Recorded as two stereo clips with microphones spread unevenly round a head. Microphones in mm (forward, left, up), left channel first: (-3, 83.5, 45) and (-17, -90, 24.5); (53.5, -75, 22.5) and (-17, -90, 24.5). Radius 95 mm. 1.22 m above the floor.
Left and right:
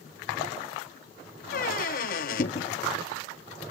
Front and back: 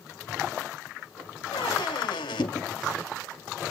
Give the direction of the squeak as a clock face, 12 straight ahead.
10 o'clock.